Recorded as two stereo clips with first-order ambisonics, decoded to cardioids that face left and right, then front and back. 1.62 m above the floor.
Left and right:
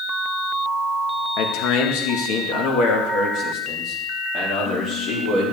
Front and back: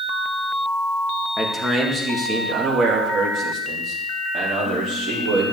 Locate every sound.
1.4 s a man speaking: 95° left, 1.7 m; by 5.5 s 135° left, 4 m